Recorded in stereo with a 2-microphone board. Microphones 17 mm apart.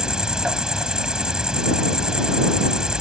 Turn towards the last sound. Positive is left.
turn(degrees=-60)  # may be behind; listen again after turning